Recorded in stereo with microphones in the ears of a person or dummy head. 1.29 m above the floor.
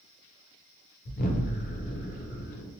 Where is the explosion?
40° left (ahead or behind), 0.6 m.